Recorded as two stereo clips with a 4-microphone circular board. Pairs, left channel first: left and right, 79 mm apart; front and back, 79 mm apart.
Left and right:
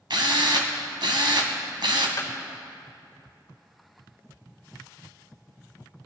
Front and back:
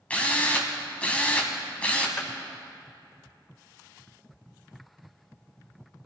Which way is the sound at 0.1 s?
75° right.